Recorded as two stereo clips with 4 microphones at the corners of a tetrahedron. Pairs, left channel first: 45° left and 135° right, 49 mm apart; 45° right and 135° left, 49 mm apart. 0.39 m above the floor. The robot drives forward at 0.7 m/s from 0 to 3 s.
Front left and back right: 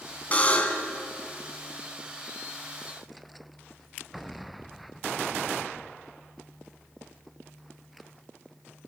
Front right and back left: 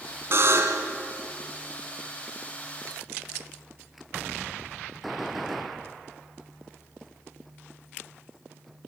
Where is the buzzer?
100° left, 3 m; by 0.9 s 110° left, 3 m.